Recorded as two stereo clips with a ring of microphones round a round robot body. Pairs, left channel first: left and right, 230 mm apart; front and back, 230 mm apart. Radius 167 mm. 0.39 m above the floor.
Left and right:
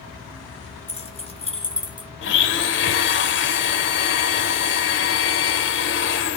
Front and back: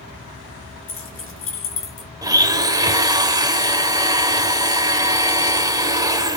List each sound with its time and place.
0.9 s keys jangling: 25° left, 4.5 m; by 2.1 s 20° left, 4 m
2.2 s a blender: 110° left, 1.5 m